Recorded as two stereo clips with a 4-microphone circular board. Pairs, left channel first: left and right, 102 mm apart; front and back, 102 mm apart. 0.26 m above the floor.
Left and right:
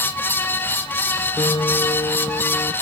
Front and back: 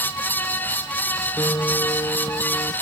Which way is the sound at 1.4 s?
55° left.